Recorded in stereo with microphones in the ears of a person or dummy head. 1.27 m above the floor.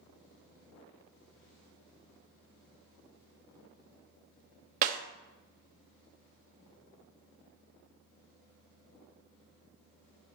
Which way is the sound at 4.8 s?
50° right (ahead or behind).